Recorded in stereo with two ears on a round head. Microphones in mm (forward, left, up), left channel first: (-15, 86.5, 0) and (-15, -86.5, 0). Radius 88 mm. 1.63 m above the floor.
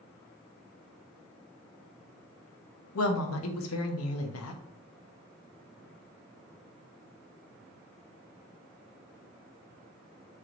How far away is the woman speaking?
About 0.6 m.